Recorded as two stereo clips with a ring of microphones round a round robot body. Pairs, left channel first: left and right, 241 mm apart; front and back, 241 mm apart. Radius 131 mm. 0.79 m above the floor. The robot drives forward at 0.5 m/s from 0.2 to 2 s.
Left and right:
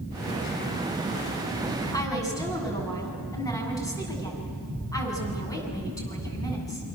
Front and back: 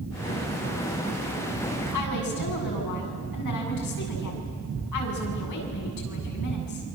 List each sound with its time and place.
1.9 s a woman speaking: 15° left, 7.5 m